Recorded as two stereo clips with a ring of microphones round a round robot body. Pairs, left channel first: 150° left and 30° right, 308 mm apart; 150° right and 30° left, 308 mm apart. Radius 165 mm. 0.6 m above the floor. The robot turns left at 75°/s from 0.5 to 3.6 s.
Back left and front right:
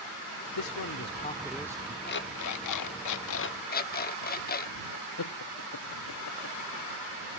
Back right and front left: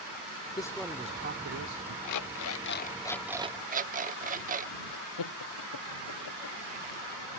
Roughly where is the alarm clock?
Behind right.